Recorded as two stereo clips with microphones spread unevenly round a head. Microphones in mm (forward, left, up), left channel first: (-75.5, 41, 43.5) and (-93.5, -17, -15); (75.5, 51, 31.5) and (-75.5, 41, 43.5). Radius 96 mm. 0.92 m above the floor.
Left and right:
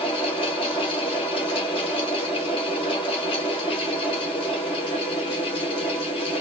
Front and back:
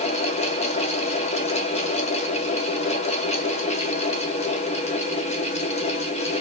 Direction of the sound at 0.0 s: 25° left.